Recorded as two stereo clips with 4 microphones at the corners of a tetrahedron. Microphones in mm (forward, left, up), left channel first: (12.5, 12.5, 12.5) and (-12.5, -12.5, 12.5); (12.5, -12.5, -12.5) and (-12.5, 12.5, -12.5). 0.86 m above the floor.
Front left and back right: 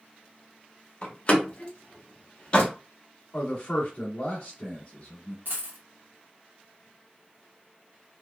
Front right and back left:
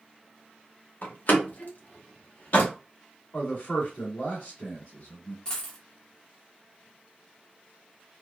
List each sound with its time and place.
1.0 s a door slam: 10° right, 0.9 m
3.3 s a man speaking: 15° left, 1.7 m
5.5 s a dropped coin: 115° right, 0.9 m